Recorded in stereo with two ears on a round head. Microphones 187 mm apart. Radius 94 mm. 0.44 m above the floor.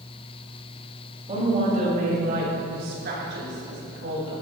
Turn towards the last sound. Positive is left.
turn(degrees=-60)  # may be behind; listen again after turning